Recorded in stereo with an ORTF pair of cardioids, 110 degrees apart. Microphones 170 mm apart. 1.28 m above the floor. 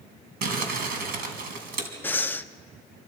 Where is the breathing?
10° left, 0.7 m.